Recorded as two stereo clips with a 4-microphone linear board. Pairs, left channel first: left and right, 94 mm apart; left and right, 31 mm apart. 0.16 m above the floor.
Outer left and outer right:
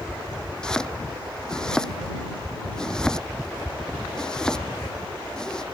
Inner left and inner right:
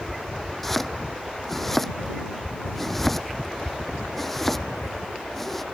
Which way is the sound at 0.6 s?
5° left (ahead or behind).